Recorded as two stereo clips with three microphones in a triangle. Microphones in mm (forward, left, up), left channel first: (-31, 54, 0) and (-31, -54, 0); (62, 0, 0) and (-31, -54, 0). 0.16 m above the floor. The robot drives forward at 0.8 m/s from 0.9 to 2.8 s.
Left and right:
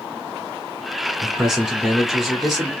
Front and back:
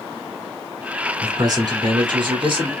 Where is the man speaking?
170° right, 1.2 m; by 2.7 s 175° right, 2 m.